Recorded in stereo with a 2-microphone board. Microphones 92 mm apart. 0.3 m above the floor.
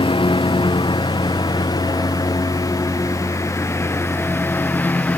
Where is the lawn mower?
70° left (ahead or behind); by 5.2 s 15° left (ahead or behind).